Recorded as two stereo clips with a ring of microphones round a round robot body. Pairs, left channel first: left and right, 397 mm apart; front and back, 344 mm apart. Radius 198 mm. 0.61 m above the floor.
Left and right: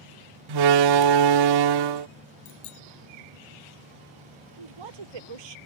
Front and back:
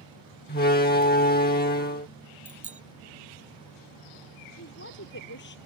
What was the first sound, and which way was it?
A door slam, 65° right.